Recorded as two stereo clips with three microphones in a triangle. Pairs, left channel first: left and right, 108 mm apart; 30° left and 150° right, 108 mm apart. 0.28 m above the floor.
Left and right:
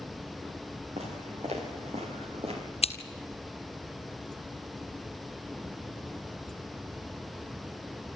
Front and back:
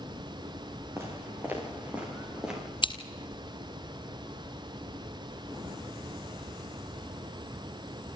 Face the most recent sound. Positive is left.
turn(degrees=70)